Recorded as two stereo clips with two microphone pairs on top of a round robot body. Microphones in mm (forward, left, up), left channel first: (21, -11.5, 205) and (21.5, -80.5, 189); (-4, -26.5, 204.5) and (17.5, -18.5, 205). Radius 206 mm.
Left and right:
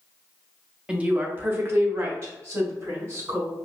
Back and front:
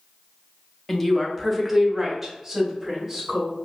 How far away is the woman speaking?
About 0.9 m.